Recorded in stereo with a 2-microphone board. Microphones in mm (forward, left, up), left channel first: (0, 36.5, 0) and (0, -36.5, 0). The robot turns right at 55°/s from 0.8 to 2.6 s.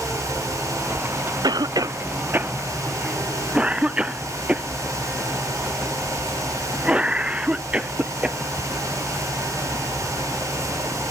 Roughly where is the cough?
Right.